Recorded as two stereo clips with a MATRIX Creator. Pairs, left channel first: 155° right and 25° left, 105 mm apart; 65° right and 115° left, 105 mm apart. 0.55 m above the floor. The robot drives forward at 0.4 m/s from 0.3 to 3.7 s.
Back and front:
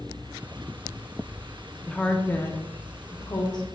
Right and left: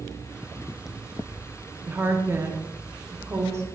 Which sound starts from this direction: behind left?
A woman speaking, at 1.9 s.